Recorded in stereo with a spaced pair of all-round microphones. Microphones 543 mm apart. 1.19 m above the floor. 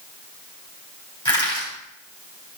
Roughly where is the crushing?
Centre.